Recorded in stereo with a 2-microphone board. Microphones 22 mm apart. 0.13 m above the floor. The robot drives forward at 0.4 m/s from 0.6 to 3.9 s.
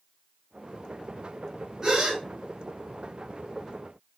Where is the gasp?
30° right (ahead or behind), 1.7 m.